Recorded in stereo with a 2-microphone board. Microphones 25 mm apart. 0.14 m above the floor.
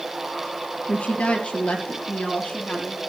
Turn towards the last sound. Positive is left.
turn(degrees=55)  # may be behind; listen again after turning